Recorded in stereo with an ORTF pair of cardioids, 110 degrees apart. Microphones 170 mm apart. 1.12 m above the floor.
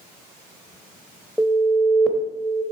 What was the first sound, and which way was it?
An alarm, straight ahead.